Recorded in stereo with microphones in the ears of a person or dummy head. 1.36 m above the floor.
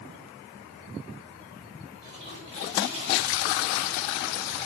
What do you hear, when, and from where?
2.0 s a toilet flushing: 30° right (ahead or behind), 7.5 m